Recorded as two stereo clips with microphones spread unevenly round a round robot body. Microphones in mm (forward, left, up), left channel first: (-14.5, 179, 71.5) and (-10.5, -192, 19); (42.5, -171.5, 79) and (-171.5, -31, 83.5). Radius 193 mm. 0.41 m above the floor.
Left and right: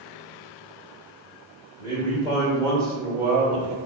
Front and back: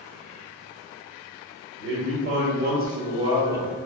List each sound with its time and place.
1.8 s a man speaking: 170° left, 2.0 m; by 3.8 s 125° right, 1.3 m